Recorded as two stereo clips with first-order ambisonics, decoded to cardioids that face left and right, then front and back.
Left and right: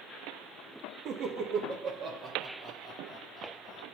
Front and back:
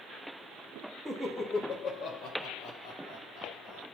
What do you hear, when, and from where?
1.1 s laughter: 80° right, 0.9 m; by 3.8 s straight ahead, 1.9 m